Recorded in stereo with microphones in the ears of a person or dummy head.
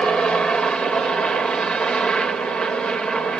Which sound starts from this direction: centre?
A helicopter, at 0.0 s.